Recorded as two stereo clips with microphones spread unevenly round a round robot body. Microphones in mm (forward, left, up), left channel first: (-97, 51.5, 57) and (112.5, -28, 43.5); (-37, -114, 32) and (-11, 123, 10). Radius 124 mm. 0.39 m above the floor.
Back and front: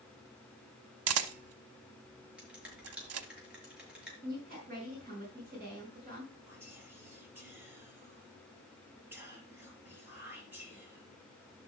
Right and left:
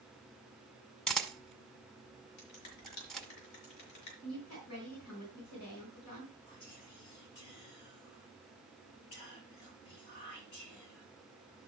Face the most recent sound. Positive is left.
turn(degrees=-100)